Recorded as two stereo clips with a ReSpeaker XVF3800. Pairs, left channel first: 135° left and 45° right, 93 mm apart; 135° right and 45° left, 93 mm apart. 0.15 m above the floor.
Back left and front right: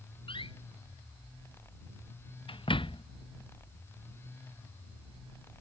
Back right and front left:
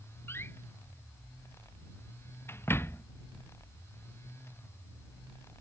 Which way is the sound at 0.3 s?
160° left.